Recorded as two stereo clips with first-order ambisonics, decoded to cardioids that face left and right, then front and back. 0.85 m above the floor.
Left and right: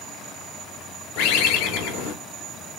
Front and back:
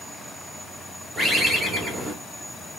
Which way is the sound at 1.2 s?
95° left.